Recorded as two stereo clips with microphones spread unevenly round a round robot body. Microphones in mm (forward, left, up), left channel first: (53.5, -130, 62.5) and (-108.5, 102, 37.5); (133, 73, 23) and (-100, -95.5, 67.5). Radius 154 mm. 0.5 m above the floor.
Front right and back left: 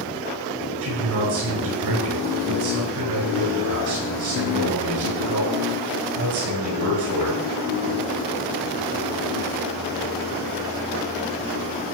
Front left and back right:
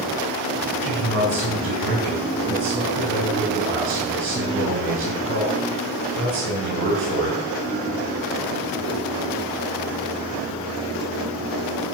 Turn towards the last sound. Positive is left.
turn(degrees=160)